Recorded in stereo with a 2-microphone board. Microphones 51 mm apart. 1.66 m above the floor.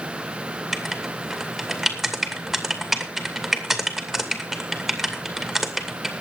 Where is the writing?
Centre (ahead or behind), 2.5 m.